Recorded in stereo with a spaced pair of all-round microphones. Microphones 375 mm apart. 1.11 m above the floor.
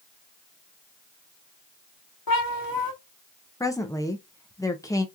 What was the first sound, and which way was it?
A cat meowing, 65° left (ahead or behind).